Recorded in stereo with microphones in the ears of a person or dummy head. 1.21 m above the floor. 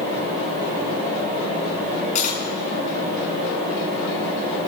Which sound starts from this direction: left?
Cutlery clinking, at 2.1 s.